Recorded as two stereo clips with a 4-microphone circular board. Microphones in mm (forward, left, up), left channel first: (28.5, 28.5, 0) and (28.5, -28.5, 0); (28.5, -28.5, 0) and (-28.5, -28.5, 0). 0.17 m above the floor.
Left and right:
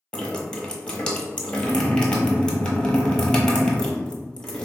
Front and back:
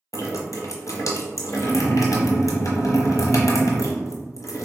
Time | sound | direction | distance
0.1 | dripping | 15° left | 0.7 m